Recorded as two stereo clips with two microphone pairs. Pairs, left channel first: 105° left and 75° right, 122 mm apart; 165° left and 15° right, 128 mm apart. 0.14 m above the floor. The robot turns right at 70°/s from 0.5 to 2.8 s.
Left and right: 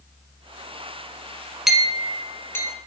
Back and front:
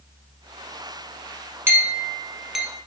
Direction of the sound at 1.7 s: Straight ahead.